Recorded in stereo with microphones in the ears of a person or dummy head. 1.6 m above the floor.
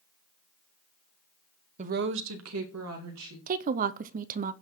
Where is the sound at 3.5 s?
45° right (ahead or behind), 0.5 m.